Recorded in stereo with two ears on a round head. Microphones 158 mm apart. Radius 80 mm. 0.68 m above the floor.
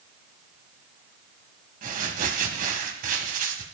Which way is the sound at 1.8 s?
50° right (ahead or behind).